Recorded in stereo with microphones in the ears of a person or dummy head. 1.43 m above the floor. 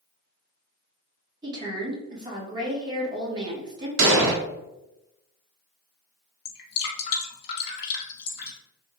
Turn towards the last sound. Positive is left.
turn(degrees=60)  # may be behind; listen again after turning